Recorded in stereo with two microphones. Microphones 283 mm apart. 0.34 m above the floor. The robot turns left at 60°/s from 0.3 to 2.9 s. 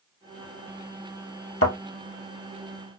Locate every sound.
1.6 s a thud: 50° left (ahead or behind), 1.0 m; by 1.8 s 45° left (ahead or behind), 1.0 m